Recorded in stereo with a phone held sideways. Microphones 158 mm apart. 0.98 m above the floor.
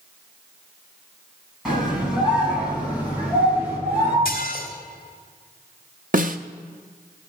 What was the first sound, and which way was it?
A scream, 5° right (ahead or behind).